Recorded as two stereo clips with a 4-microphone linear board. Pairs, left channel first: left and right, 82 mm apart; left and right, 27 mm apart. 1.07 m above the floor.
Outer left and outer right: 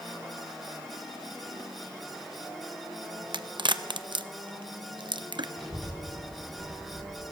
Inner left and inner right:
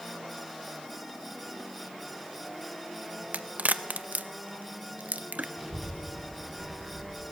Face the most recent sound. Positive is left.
turn(degrees=10)  # may be behind; listen again after turning